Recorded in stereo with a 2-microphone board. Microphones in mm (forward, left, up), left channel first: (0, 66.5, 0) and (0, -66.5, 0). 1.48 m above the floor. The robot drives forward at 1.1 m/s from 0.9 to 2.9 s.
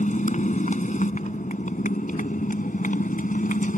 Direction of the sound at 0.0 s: 70° left (ahead or behind).